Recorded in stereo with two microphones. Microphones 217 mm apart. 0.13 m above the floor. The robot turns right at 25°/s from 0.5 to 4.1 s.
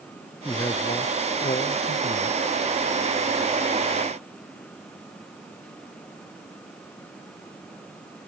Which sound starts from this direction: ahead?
A man speaking, at 0.5 s.